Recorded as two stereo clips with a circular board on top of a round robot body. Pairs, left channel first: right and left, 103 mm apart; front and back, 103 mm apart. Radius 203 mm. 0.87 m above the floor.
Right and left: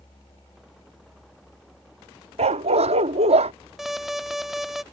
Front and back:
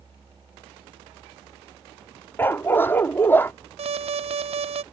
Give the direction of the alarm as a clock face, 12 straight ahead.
6 o'clock.